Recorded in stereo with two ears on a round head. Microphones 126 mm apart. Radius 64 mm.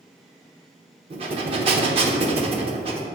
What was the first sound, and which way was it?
Breathing, 40° right (ahead or behind).